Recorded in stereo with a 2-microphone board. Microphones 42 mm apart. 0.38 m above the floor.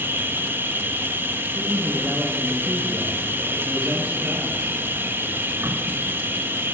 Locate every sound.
0.0 s an insect: 65° right (ahead or behind), 0.7 m
1.6 s a man speaking: 25° right (ahead or behind), 4.5 m